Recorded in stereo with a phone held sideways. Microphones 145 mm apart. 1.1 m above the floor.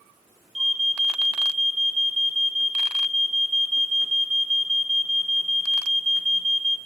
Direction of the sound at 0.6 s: 50° right (ahead or behind).